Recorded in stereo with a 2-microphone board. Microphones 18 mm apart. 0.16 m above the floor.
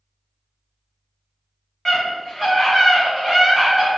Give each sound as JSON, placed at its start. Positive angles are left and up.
{"t": 1.9, "sound": "a scream", "side_deg": 25, "distance_m": 1.6}